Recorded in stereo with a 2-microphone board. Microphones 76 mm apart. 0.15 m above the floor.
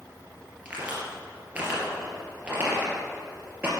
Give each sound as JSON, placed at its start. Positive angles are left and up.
{"t": 0.7, "sound": "a crack", "side_deg": -15, "distance_m": 3.0}